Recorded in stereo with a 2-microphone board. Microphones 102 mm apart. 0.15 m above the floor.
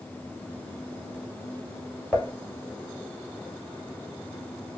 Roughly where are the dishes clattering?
Centre.